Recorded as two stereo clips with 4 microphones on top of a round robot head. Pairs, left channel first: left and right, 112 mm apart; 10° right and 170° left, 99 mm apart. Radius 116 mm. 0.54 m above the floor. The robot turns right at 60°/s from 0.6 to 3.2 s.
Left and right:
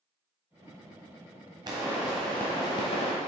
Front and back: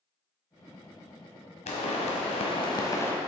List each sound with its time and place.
1.7 s a pop: 30° right, 1.3 m; by 3.1 s 55° left, 1.3 m